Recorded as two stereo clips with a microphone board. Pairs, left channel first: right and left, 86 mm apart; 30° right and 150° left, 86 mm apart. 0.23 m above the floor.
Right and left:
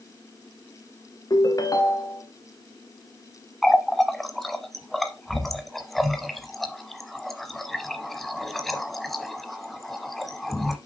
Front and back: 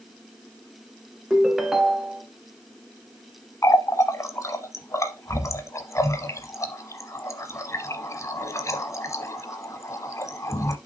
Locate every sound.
1.3 s a ringtone: 125° right, 1.0 m
3.6 s a running tap: 5° right, 0.9 m